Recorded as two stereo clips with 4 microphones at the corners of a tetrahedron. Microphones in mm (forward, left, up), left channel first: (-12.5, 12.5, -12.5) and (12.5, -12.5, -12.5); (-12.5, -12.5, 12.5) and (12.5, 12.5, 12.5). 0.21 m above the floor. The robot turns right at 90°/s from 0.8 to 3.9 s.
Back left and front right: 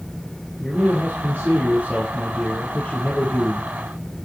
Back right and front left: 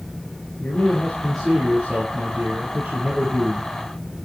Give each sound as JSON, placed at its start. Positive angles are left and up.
{"t": 0.6, "sound": "a man speaking", "azimuth_deg": -100, "distance_m": 5.0}